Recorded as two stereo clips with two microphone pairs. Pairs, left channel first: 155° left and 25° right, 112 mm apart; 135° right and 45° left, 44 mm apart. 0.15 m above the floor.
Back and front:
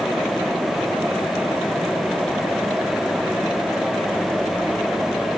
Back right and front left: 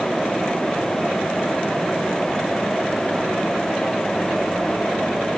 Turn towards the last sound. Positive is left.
No sound to turn to.